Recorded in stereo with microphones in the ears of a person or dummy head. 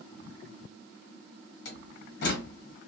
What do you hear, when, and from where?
1.6 s a door slam: 60° left (ahead or behind), 1.0 m